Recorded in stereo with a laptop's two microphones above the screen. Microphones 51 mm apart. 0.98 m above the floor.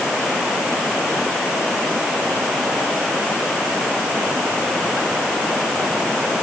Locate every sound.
Only background noise.